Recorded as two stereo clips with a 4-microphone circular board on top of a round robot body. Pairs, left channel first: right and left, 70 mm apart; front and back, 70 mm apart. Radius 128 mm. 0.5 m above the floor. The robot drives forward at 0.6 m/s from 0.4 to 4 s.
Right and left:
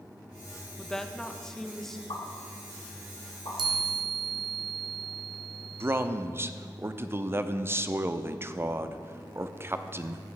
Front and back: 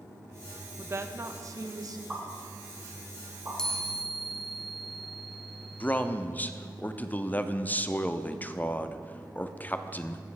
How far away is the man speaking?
About 0.8 m.